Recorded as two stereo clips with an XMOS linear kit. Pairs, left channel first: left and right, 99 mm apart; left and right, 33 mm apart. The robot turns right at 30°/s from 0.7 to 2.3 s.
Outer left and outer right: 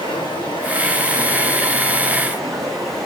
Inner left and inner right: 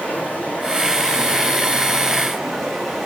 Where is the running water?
130° left, 2.5 m; by 3.1 s straight behind, 2.5 m.